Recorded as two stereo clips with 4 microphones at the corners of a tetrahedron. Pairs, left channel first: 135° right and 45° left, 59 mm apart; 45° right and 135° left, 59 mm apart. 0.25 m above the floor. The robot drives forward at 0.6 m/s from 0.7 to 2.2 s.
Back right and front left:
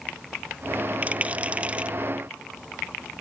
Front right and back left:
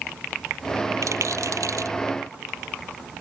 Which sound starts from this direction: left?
A rattle, at 1.0 s.